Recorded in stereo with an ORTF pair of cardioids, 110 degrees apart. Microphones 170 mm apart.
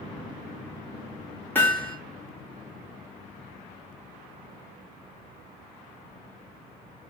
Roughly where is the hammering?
Ahead.